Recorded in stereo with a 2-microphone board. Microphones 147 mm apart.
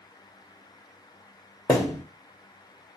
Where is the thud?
15° left (ahead or behind), 1.9 m.